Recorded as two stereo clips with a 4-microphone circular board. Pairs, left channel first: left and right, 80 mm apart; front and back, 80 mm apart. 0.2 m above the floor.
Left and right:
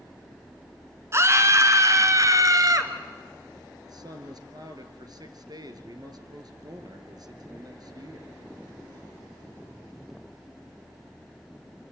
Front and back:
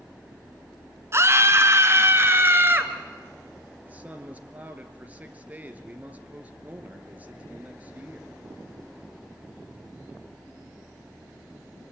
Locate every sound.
1.1 s a scream: 135° right, 2.5 m; by 2.9 s 120° right, 3.5 m
3.9 s a man speaking: 110° right, 3 m